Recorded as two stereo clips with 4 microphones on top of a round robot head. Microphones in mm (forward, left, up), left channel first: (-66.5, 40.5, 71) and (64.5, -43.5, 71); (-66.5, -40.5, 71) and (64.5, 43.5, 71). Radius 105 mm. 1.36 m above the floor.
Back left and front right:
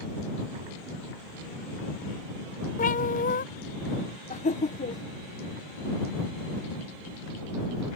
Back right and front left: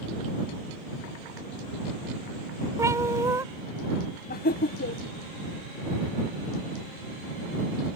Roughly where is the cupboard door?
No cupboard door in this recording.